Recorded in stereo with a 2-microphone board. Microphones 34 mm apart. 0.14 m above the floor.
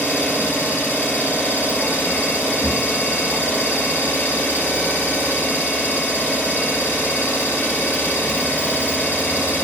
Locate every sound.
0.0 s an engine running: 60° left (ahead or behind), 1.3 m